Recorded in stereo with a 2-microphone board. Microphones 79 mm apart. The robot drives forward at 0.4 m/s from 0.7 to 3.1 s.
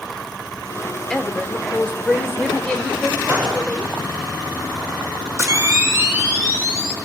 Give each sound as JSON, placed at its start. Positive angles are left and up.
{"t": 1.1, "sound": "a woman speaking", "side_deg": 10, "distance_m": 1.0}
{"t": 3.3, "sound": "a gunshot", "side_deg": -50, "distance_m": 5.0}
{"t": 5.4, "sound": "a camera shutter", "side_deg": -30, "distance_m": 1.3}